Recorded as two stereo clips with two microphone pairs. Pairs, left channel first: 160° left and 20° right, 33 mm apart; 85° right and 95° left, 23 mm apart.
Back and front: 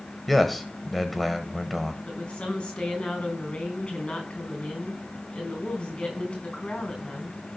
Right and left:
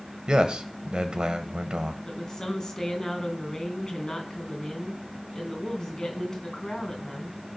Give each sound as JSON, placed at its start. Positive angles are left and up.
{"t": 0.3, "sound": "a man speaking", "azimuth_deg": 80, "distance_m": 1.5}
{"t": 2.0, "sound": "a woman speaking", "azimuth_deg": -140, "distance_m": 4.0}